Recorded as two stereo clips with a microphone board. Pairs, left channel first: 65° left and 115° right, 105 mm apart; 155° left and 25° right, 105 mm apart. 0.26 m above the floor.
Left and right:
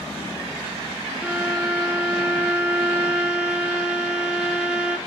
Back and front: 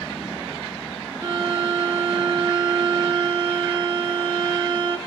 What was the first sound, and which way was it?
A violin, 30° right.